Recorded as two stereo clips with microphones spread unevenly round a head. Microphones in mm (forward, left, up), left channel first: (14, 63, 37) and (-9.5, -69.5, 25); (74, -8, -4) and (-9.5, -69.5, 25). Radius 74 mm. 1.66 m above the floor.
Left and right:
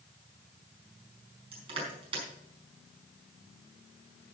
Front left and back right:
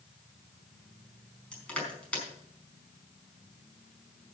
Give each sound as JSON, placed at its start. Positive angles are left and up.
{"t": 1.5, "sound": "crushing", "azimuth_deg": -45, "distance_m": 4.5}